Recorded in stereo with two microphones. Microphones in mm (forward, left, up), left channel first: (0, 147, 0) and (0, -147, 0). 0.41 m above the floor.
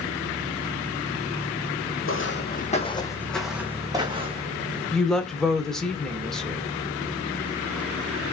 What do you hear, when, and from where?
2.0 s footsteps: 50° left (ahead or behind), 0.8 m; by 4.6 s 25° right (ahead or behind), 1.3 m
4.9 s a woman speaking: centre (ahead or behind), 0.9 m